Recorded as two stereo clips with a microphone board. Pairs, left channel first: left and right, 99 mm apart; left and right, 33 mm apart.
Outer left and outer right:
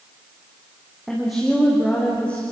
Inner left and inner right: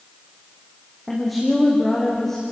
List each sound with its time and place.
1.1 s a woman speaking: 5° right (ahead or behind), 6.5 m; by 2.4 s 15° left (ahead or behind), 6 m